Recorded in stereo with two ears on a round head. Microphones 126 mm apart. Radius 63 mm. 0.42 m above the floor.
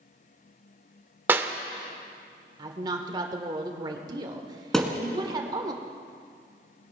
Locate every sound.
1.3 s a clap: 15° right (ahead or behind), 0.7 m
2.6 s a woman speaking: 30° right (ahead or behind), 1.3 m
4.7 s a thud: centre (ahead or behind), 1.5 m